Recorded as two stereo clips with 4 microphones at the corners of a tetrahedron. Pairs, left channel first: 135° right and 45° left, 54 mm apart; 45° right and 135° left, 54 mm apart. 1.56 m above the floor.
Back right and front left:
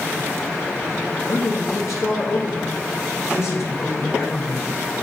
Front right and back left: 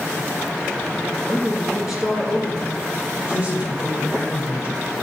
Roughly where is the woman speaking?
Behind.